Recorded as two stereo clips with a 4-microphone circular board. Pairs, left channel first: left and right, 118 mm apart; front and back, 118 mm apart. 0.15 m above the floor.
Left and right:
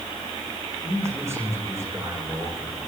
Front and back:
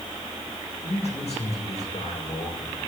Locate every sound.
0.8 s a man speaking: 25° right, 9 m